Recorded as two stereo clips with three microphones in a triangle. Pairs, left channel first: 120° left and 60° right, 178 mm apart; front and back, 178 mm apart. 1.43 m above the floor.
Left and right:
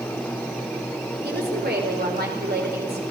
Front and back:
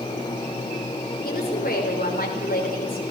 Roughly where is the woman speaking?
Ahead right.